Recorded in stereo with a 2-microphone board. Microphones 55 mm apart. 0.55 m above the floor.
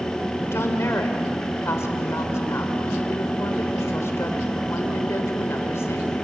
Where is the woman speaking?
55° left (ahead or behind), 2 m.